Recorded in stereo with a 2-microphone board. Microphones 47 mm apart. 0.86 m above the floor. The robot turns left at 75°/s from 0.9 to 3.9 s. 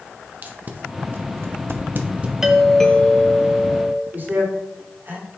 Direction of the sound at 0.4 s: 40° right (ahead or behind).